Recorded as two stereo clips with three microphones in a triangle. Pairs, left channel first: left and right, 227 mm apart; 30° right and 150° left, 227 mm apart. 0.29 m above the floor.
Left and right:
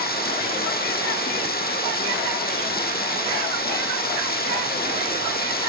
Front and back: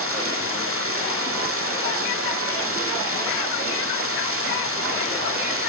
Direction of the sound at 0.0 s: 135° left.